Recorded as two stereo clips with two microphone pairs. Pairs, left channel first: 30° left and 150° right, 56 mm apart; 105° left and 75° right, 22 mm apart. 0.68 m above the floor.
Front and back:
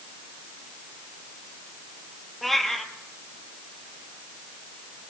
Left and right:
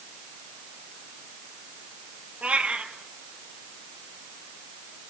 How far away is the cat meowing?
About 2.5 m.